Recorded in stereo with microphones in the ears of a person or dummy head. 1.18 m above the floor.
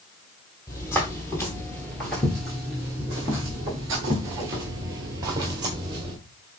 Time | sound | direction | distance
0.7 | footsteps | 15° left (ahead or behind) | 1.7 m